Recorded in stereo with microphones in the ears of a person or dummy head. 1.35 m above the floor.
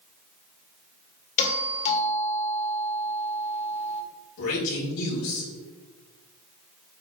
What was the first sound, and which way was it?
A doorbell, 35° left (ahead or behind).